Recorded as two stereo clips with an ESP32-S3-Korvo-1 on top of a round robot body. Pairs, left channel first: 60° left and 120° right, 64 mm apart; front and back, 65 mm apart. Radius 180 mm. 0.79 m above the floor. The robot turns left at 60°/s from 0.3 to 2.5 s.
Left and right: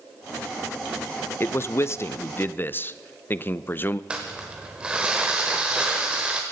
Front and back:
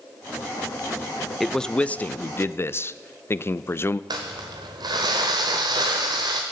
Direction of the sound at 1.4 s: 90° left.